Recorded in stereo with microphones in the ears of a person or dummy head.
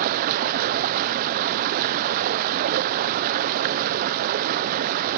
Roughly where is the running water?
Right.